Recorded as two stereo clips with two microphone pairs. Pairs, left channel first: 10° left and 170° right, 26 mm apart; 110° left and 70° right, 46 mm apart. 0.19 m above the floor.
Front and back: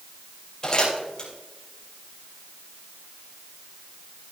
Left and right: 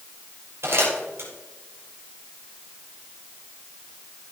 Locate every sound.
0.6 s crumpling: 45° right, 6 m